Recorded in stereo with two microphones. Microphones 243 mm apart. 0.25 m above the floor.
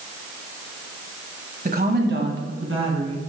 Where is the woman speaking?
35° right (ahead or behind), 1.6 m; by 3.2 s 65° right (ahead or behind), 3 m.